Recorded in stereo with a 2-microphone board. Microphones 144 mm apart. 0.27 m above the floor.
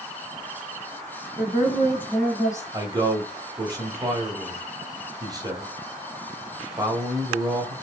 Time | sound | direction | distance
1.4 | a woman speaking | 5° left (ahead or behind) | 1.9 m
2.7 | a man speaking | 25° right (ahead or behind) | 1.4 m